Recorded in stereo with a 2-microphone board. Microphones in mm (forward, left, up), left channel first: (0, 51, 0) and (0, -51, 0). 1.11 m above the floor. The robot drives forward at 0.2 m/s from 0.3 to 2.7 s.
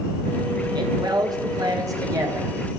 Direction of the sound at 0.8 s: 45° right (ahead or behind).